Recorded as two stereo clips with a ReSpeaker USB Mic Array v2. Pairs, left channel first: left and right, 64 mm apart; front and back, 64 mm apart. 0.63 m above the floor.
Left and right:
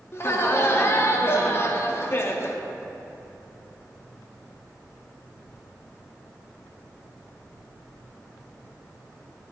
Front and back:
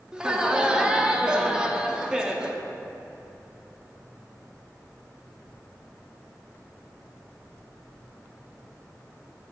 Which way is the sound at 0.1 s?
110° left.